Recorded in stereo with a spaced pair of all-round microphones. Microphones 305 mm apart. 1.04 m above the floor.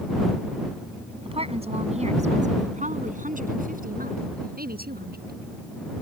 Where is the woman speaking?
15° right (ahead or behind); by 5.4 s 30° right (ahead or behind).